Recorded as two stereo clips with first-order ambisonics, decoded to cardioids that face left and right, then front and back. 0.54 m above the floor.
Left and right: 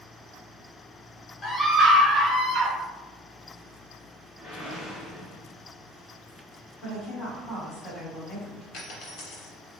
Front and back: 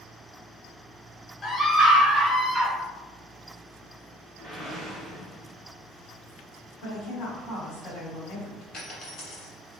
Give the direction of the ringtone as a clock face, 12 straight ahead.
I don't hear a ringtone.